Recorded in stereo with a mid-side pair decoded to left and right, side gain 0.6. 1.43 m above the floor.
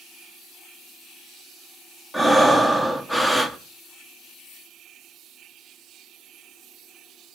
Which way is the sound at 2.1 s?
5° left.